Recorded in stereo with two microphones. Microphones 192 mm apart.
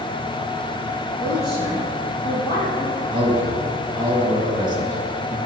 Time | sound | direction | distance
1.2 | a woman speaking | 30° left (ahead or behind) | 3.5 m
3.1 | a man speaking | 25° right (ahead or behind) | 2 m